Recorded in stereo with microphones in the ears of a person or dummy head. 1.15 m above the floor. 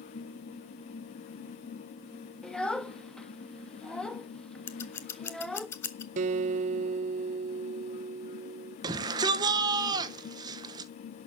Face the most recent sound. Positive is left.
turn(degrees=-30)  # may be behind; listen again after turning